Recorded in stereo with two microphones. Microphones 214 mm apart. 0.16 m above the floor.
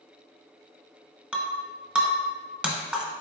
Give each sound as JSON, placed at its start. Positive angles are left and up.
{"t": 1.3, "sound": "breaking glass", "side_deg": -5, "distance_m": 0.9}